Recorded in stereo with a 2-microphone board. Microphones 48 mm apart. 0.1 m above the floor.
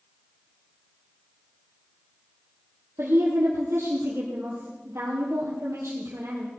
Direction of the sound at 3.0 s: 65° right (ahead or behind).